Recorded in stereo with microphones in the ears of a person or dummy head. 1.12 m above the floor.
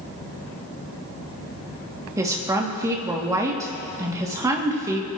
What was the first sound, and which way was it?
A woman speaking, 15° right (ahead or behind).